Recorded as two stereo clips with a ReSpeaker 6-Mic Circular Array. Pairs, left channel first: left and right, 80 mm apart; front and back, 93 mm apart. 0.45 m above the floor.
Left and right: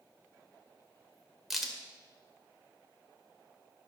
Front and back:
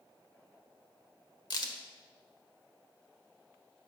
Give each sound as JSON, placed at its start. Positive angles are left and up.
{"t": 1.5, "sound": "a crack", "azimuth_deg": -5, "distance_m": 1.6}